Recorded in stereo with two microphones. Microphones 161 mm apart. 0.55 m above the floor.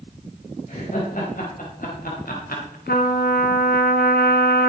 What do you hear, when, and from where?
0.7 s laughter: 55° left (ahead or behind), 3.5 m; by 2.8 s 65° left (ahead or behind), 2.5 m
2.9 s a trumpet: 80° left, 1.6 m